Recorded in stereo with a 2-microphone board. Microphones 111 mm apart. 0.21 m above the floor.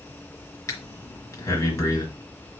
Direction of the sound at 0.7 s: 30° left (ahead or behind).